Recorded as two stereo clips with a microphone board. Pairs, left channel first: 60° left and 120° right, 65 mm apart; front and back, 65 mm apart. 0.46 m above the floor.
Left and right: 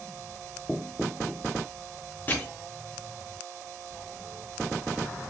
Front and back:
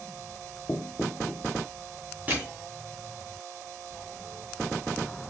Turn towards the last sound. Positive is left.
turn(degrees=115)